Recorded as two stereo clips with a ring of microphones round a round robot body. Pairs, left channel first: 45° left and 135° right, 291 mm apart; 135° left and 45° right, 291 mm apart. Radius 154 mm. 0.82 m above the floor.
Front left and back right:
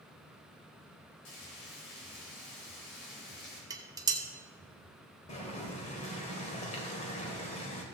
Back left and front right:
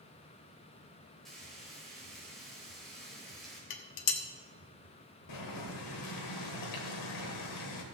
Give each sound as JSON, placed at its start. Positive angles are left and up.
{"t": 1.2, "sound": "frying", "azimuth_deg": 45, "distance_m": 4.5}
{"t": 3.7, "sound": "dishes clattering", "azimuth_deg": 145, "distance_m": 1.1}
{"t": 5.3, "sound": "boiling", "azimuth_deg": 115, "distance_m": 1.9}